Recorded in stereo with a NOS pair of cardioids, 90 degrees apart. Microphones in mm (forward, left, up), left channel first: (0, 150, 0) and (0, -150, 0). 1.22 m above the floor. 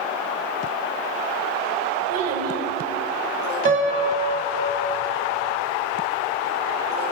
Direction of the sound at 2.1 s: 55° right.